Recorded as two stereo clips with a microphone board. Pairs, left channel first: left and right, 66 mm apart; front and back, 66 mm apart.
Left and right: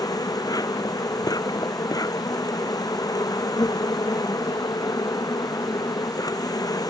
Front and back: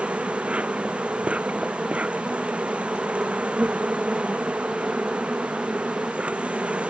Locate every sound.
0.0 s an insect: 105° left